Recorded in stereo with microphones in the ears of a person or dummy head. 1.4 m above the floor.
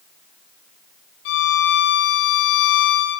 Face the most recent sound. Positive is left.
turn(degrees=60)  # may be behind; listen again after turning